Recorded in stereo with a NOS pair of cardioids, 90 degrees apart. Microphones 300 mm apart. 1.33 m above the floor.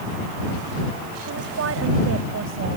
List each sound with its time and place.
1.2 s a woman speaking: 55° right; by 2.8 s 45° right